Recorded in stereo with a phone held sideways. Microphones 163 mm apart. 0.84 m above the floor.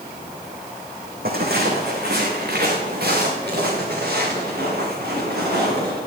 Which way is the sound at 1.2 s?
70° right (ahead or behind).